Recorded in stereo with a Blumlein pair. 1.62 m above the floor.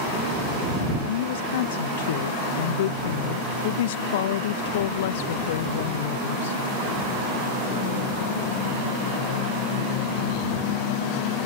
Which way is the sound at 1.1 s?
55° left.